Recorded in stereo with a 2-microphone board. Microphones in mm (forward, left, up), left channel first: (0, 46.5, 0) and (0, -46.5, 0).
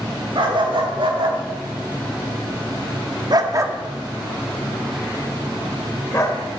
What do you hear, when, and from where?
0.3 s a dog barking: 70° right (ahead or behind), 3 m; by 6.4 s 35° left (ahead or behind), 2.5 m